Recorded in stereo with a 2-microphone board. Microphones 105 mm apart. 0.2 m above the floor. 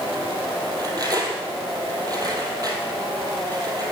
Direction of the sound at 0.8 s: 40° right (ahead or behind).